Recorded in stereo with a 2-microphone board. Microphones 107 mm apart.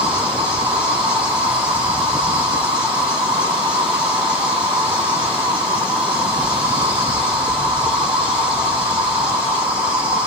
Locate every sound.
0.0 s an insect: 10° right (ahead or behind), 1.5 m